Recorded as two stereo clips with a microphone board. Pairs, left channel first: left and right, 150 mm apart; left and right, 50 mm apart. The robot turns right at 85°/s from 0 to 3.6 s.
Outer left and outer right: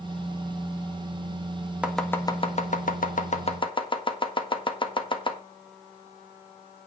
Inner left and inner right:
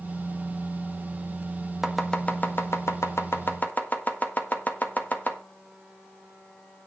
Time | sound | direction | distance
1.8 | chopping | 10° right (ahead or behind) | 1.5 m